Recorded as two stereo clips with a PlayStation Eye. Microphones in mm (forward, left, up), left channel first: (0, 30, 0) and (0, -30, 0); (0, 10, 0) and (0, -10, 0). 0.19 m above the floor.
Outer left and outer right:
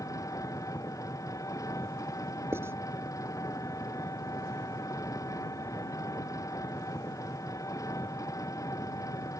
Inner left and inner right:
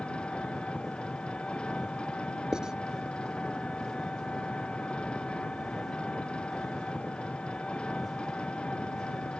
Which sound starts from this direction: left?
An engine running, at 0.0 s.